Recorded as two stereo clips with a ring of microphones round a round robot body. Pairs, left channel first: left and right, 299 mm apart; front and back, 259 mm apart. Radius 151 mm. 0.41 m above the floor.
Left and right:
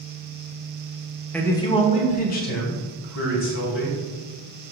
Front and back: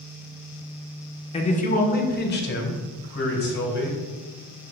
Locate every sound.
1.3 s a man speaking: 15° left, 1.1 m; by 4.0 s 45° left, 3 m